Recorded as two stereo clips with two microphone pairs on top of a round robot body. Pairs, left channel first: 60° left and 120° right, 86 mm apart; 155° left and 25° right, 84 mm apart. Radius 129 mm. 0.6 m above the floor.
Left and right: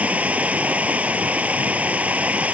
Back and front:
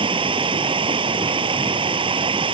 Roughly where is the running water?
Ahead right.